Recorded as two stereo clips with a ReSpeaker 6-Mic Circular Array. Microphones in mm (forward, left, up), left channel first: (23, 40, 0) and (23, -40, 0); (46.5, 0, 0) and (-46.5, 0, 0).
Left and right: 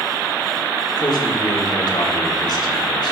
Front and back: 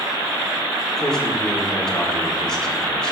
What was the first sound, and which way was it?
A man speaking, 85° left.